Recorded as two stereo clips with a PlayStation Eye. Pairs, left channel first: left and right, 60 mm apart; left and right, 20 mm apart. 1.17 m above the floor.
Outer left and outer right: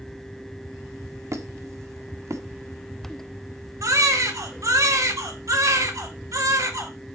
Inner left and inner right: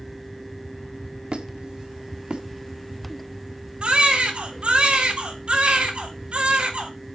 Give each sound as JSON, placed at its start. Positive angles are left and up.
{"t": 1.3, "sound": "a squeak", "side_deg": -60, "distance_m": 1.5}
{"t": 3.8, "sound": "a baby crying", "side_deg": -65, "distance_m": 3.0}